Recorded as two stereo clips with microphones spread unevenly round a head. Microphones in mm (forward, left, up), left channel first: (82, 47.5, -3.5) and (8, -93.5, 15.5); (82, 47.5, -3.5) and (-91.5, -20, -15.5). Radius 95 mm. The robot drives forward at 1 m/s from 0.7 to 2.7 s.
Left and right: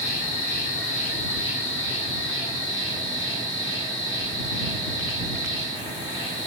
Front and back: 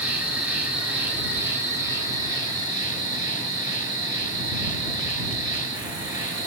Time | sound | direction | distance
0.0 | an insect | 115° left | 5.5 m